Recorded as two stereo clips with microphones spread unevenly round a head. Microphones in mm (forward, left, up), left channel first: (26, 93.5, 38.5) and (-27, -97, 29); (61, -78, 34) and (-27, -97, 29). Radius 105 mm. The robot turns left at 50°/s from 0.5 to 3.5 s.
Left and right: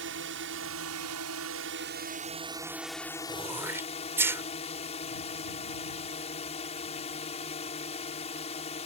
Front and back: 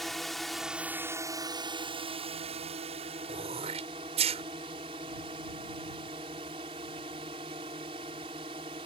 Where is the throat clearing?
175° right; by 4.4 s 175° left.